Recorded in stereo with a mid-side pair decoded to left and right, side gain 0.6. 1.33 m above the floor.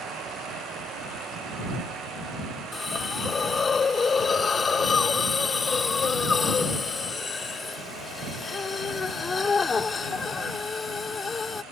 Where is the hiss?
25° left.